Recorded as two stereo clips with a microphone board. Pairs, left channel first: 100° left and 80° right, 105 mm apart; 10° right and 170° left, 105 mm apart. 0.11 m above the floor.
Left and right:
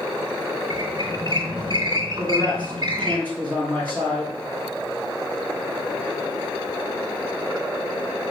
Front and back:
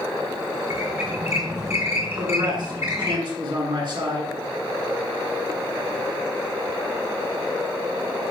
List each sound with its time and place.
0.7 s a squeak: 125° right, 1.7 m
2.2 s a man speaking: 170° left, 2.5 m